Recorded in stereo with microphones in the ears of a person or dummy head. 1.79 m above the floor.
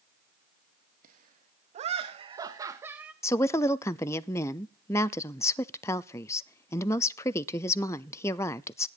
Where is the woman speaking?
15° left (ahead or behind), 0.6 m.